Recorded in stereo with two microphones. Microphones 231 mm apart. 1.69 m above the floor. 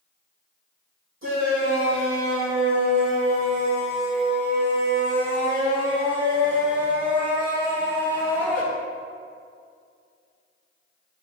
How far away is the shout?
About 2.5 m.